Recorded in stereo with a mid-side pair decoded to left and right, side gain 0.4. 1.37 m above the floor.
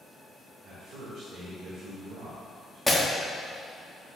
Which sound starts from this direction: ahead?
Breaking glass, at 2.9 s.